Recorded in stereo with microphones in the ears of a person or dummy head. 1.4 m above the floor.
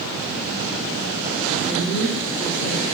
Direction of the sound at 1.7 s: 65° left (ahead or behind).